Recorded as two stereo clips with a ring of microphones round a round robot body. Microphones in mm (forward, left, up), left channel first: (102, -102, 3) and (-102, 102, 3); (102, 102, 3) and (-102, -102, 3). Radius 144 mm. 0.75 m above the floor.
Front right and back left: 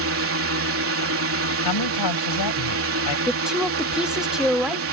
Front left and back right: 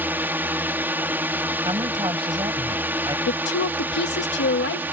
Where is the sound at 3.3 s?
50° left.